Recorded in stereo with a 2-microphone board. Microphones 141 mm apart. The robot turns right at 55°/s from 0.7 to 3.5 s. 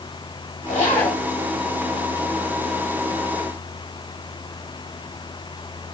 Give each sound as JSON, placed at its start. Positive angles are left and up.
{"t": 0.7, "sound": "a zipper", "side_deg": 55, "distance_m": 2.5}